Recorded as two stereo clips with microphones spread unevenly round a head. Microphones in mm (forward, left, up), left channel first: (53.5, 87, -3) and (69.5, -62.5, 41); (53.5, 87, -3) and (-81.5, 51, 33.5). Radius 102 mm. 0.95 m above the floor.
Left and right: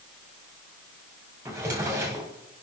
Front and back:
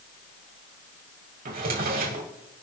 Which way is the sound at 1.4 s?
160° right.